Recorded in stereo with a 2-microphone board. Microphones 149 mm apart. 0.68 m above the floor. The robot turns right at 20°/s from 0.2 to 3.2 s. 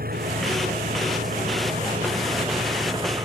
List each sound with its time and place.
0.0 s an engine running: 90° right; by 3.2 s 30° right